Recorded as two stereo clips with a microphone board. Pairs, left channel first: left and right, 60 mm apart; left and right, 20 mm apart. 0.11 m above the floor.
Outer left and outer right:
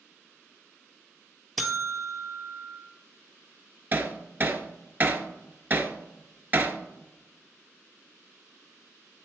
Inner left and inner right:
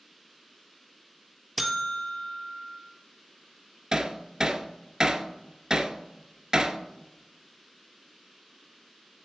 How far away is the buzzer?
About 1.8 m.